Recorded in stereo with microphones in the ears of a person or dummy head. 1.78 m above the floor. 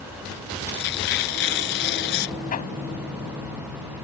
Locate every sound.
0.7 s tearing paper: 55° left (ahead or behind)
2.5 s hammering: 35° left (ahead or behind)